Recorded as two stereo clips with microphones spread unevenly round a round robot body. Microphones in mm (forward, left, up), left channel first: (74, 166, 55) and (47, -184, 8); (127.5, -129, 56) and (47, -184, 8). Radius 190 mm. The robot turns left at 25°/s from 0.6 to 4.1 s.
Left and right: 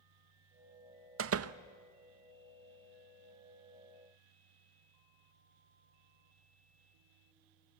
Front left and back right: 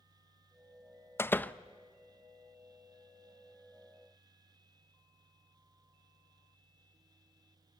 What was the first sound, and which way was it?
A door slam, 50° right.